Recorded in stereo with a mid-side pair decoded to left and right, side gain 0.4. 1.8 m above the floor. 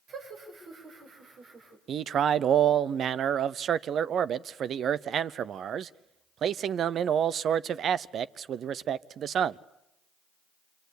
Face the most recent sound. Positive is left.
turn(degrees=-65)